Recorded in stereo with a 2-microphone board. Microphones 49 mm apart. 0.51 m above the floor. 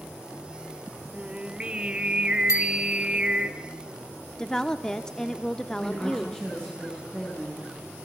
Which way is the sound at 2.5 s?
80° left.